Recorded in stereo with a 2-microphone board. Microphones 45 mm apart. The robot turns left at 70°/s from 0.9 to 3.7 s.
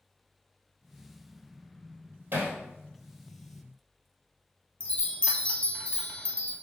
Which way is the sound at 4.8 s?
25° left (ahead or behind).